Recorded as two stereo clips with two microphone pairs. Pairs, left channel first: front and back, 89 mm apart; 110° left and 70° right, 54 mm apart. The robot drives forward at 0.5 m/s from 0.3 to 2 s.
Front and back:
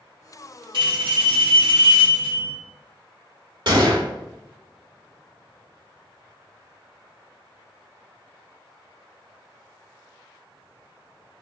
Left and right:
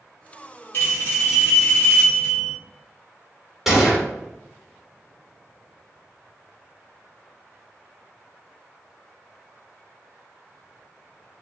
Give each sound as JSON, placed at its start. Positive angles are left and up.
{"t": 0.7, "sound": "a bell", "azimuth_deg": 155, "distance_m": 1.8}
{"t": 3.7, "sound": "a gunshot", "azimuth_deg": -155, "distance_m": 1.2}